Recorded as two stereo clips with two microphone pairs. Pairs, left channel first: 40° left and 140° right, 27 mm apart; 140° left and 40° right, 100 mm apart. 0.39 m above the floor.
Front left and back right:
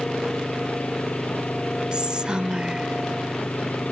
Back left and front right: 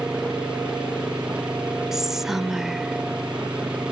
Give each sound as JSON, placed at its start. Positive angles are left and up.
{"t": 0.0, "sound": "an engine running", "azimuth_deg": 40}
{"t": 1.9, "sound": "whispering", "azimuth_deg": -125}